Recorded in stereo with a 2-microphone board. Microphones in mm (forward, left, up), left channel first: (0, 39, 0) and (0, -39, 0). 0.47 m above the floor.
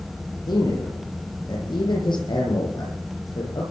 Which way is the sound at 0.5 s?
80° left.